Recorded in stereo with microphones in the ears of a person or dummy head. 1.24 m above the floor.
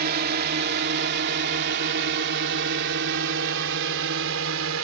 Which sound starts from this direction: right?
A drone, at 0.0 s.